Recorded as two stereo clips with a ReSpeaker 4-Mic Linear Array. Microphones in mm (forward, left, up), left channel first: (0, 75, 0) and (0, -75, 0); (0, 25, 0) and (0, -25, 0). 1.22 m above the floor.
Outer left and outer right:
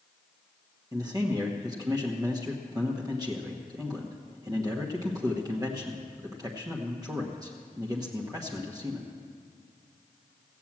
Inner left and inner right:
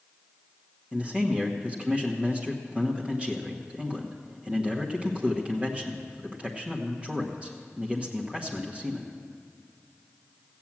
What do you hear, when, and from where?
0.9 s a man speaking: 25° right (ahead or behind), 1.2 m